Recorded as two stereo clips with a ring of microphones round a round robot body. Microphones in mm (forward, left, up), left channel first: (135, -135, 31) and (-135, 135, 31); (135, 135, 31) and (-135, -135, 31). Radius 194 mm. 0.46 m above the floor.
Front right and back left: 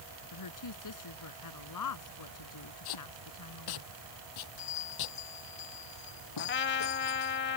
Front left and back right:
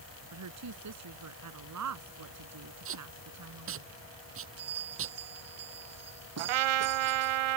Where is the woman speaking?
85° right.